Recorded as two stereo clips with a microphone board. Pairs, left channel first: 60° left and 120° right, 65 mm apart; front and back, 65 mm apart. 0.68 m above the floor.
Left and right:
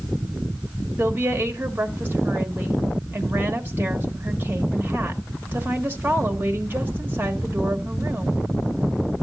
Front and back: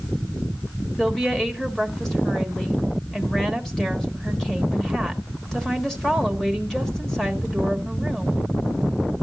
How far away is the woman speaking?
About 1.4 m.